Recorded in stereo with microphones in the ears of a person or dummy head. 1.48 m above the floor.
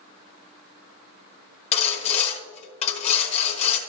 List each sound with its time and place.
1.7 s sawing: 30° left (ahead or behind), 1.3 m